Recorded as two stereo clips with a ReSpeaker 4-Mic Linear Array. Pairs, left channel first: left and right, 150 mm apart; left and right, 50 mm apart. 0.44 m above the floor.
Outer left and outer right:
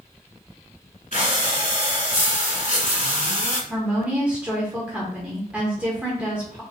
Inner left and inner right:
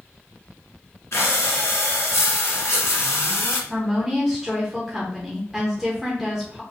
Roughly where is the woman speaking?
Centre.